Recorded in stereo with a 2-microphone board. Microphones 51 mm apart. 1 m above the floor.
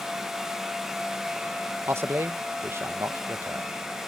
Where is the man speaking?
50° right (ahead or behind).